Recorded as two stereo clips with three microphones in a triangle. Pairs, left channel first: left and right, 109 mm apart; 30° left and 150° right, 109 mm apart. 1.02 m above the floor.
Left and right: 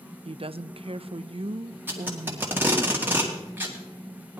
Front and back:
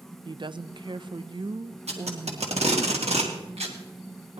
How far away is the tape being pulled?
About 2 m.